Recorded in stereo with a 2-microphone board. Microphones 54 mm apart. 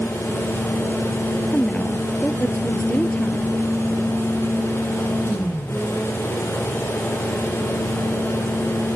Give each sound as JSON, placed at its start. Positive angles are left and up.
{"t": 1.5, "sound": "a woman speaking", "side_deg": 20}